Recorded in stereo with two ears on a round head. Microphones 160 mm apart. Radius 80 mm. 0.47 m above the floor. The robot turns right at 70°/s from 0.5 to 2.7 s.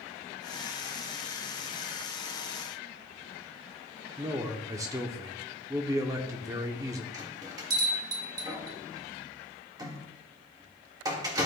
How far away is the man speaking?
About 0.9 m.